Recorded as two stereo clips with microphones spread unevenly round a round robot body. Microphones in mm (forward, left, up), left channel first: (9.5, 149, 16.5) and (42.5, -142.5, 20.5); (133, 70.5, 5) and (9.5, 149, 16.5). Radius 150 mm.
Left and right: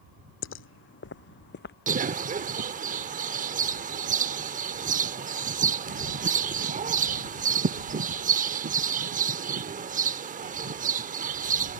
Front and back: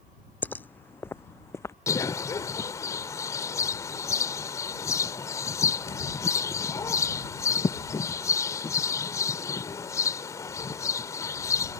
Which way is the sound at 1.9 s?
60° right.